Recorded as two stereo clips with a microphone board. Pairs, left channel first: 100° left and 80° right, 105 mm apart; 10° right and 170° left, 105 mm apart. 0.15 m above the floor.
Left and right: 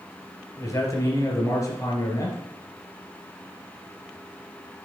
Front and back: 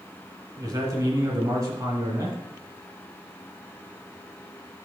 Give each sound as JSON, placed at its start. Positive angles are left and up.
{"t": 0.6, "sound": "a man speaking", "azimuth_deg": 130, "distance_m": 2.0}